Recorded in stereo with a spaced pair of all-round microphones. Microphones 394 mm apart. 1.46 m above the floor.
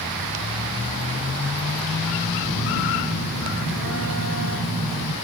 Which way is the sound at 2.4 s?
50° left (ahead or behind).